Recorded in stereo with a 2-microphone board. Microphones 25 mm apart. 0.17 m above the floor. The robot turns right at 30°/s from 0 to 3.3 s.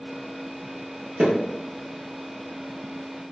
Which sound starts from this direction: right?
Hammering, at 1.2 s.